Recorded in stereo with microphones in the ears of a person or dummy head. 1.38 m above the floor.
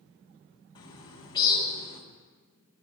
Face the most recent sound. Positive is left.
turn(degrees=30)  # may be behind; listen again after turning